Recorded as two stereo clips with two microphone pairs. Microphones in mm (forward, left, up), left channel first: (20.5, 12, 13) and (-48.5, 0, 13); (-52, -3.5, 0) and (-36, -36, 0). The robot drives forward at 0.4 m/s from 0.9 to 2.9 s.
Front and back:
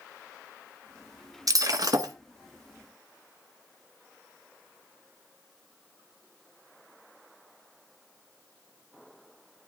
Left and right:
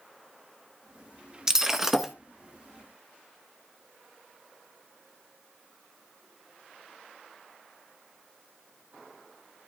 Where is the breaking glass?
140° right, 1.1 m; by 2.1 s 150° right, 1.4 m.